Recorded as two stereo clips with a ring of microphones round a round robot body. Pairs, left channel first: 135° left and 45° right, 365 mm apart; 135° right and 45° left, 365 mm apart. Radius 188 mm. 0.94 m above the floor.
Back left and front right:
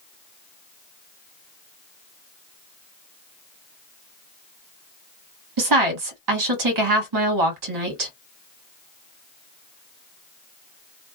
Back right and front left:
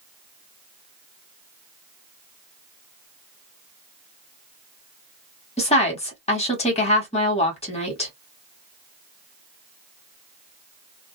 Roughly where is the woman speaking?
Ahead right.